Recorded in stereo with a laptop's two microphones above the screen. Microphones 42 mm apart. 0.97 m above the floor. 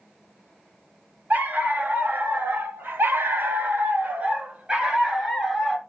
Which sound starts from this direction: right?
A dog barking, at 1.3 s.